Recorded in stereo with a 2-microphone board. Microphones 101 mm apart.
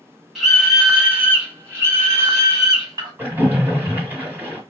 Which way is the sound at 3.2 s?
15° right (ahead or behind).